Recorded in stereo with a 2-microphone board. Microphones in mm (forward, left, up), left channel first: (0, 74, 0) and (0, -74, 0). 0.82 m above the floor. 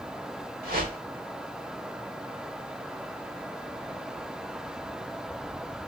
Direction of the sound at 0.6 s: 80° right.